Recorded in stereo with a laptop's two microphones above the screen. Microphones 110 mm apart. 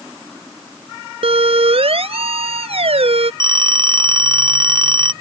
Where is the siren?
60° right (ahead or behind).